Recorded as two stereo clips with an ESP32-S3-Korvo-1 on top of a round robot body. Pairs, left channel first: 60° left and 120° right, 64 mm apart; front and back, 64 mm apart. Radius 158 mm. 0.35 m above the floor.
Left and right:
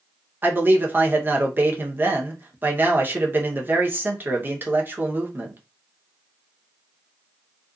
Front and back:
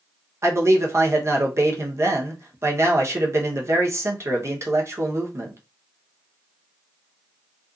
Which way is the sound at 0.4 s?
165° right.